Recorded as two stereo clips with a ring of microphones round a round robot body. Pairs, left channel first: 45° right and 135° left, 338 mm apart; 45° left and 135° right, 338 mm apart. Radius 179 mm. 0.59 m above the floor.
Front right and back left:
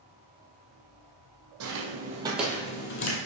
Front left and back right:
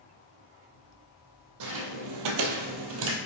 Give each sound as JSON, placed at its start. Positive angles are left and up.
{"t": 1.6, "sound": "footsteps", "azimuth_deg": -175, "distance_m": 1.5}